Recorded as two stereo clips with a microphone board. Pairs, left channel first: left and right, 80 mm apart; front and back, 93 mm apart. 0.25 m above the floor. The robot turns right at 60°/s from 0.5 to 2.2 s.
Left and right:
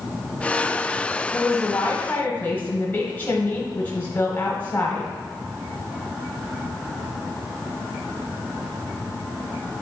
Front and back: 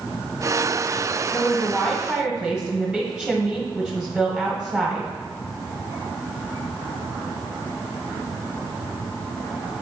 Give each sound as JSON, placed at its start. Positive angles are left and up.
{"t": 1.3, "sound": "a woman speaking", "azimuth_deg": 50, "distance_m": 1.4}